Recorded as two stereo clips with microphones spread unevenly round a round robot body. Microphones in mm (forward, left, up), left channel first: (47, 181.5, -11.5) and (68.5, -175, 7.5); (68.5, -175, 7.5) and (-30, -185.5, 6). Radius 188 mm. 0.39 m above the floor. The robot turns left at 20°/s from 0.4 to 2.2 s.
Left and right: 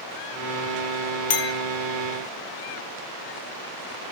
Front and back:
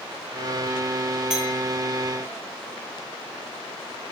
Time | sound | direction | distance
1.3 | a clink | 110° left | 0.5 m